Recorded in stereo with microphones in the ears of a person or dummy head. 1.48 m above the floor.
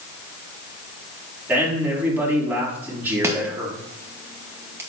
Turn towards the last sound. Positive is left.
turn(degrees=-15)  # may be behind; listen again after turning